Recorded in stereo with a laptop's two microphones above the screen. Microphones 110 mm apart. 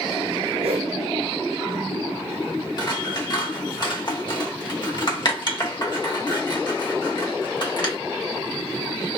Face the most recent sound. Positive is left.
turn(degrees=40)  # may be behind; listen again after turning